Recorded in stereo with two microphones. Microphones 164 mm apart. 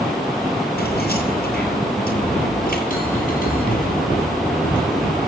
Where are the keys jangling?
75° left (ahead or behind), 7.5 m; by 2.8 s 70° left (ahead or behind), 6.5 m.